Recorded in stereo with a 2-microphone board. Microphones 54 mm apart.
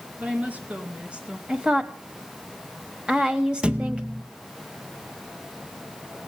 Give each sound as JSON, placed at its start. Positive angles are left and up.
{"t": 0.2, "sound": "a woman speaking", "side_deg": -30, "distance_m": 4.5}
{"t": 1.5, "sound": "a woman speaking", "side_deg": -20, "distance_m": 1.5}
{"t": 3.6, "sound": "a thud", "side_deg": -20, "distance_m": 1.0}